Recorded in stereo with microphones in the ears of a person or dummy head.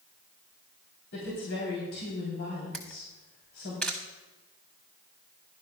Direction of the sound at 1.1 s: 70° left (ahead or behind).